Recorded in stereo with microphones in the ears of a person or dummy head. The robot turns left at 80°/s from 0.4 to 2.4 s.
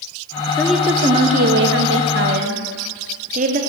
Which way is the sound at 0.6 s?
15° left.